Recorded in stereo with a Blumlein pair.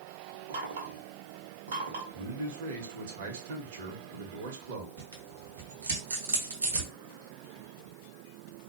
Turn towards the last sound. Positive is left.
turn(degrees=-70)